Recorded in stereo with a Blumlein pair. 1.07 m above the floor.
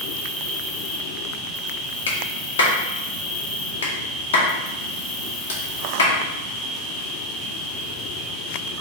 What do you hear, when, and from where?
0.0 s an insect: 10° left, 1.0 m
2.1 s a clap: 65° left, 0.8 m